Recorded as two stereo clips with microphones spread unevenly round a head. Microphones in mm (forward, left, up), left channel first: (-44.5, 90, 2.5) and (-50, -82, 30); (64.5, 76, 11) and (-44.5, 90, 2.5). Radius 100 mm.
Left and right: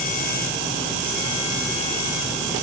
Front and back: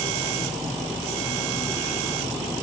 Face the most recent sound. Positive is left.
No sound to turn to.